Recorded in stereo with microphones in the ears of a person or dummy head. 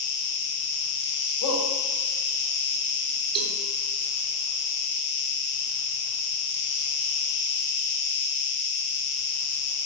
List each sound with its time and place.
0.0 s an insect: 60° left (ahead or behind), 1.5 m
1.4 s a shout: 70° left (ahead or behind), 4.5 m
3.4 s a cowbell: 30° right (ahead or behind), 2.5 m